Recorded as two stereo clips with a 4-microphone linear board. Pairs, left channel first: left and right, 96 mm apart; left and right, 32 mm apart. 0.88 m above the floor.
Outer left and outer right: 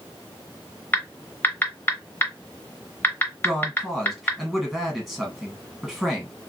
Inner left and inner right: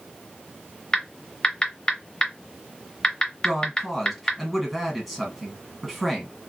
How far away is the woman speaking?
About 1.3 m.